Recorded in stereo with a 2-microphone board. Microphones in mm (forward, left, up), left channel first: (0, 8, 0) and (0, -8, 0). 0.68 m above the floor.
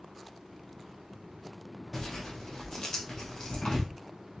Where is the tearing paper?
40° left (ahead or behind), 2.0 m.